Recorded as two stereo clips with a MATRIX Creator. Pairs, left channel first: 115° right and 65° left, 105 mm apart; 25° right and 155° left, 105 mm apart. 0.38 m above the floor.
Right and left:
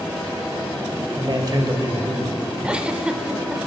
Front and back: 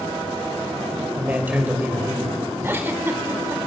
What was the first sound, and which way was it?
A man speaking, 90° left.